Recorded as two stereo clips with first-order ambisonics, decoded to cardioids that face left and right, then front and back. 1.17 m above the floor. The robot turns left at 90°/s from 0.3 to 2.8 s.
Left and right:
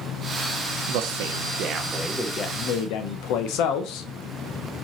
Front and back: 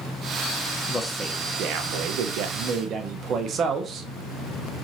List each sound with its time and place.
0.9 s a man speaking: 70° right, 0.7 m; by 4.1 s 120° left, 0.7 m